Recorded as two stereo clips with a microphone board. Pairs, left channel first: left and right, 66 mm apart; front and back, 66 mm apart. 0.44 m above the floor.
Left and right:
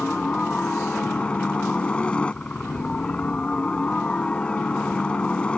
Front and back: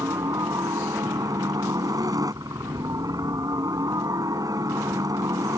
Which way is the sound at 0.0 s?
160° left.